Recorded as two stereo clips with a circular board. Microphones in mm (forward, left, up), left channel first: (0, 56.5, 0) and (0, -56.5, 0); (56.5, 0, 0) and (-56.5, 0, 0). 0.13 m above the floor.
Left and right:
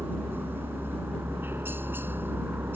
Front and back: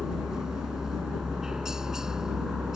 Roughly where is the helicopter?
Right.